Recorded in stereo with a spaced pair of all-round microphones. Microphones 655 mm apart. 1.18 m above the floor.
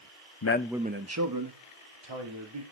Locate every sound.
0.4 s a man speaking: 35° left (ahead or behind), 0.5 m; by 2.6 s 45° right (ahead or behind), 3 m